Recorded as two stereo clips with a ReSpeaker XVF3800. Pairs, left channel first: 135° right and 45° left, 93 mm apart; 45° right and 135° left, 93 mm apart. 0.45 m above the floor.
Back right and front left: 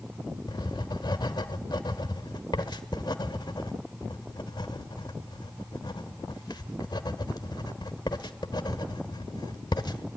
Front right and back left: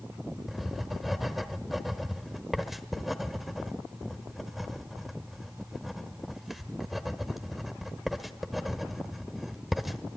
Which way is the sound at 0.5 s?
140° right.